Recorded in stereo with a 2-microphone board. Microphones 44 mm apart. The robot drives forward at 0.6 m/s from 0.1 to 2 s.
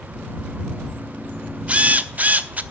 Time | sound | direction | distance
1.7 | a drill | 30° right (ahead or behind) | 1.0 m